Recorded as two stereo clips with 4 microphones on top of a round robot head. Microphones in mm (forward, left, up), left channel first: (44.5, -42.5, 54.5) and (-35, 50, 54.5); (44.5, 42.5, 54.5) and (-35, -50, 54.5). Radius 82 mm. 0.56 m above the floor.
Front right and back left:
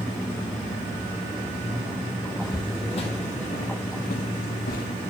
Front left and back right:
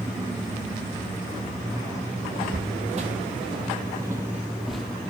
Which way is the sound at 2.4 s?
110° right.